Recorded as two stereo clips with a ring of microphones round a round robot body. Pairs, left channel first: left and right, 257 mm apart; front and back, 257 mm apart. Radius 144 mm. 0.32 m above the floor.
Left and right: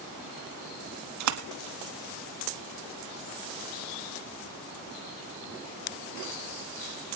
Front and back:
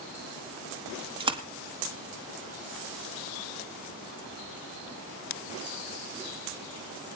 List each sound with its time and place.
1.2 s a splash: 110° right, 1.3 m